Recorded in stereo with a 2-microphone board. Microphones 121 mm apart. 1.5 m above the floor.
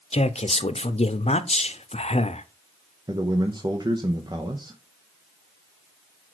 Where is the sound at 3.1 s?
35° right (ahead or behind), 0.9 m.